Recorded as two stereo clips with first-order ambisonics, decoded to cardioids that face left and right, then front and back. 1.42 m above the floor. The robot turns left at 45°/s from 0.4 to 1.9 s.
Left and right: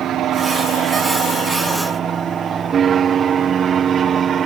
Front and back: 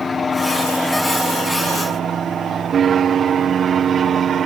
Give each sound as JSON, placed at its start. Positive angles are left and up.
{"t": 0.0, "sound": "an aircraft", "azimuth_deg": -70}